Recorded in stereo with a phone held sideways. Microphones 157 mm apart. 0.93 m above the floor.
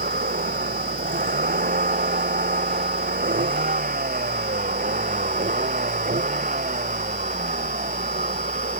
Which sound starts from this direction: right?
A vehicle, at 0.0 s.